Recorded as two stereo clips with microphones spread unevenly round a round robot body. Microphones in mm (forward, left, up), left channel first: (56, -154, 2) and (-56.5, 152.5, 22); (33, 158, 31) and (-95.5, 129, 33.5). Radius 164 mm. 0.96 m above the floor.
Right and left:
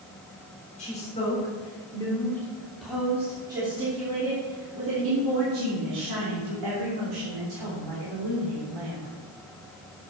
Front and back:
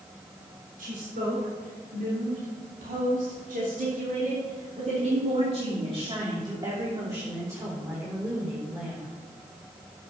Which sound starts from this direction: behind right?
A woman speaking, at 0.8 s.